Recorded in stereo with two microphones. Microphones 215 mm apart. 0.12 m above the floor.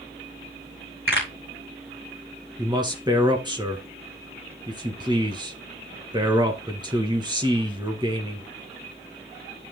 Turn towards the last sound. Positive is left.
turn(degrees=-20)  # may be behind; listen again after turning